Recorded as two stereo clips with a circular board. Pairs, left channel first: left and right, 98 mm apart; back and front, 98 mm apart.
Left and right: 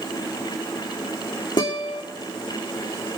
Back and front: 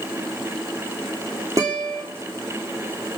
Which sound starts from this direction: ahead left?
A guitar, at 1.6 s.